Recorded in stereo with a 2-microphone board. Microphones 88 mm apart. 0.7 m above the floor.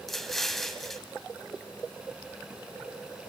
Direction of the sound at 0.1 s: 5° left (ahead or behind).